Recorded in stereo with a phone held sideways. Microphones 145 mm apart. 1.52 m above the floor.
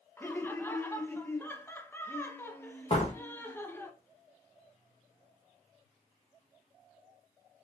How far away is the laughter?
About 0.7 m.